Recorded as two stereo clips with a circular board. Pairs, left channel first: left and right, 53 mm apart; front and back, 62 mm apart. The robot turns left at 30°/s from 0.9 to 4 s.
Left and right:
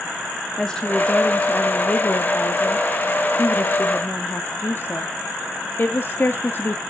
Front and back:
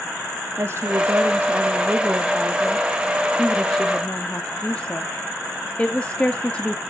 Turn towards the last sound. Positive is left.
turn(degrees=65)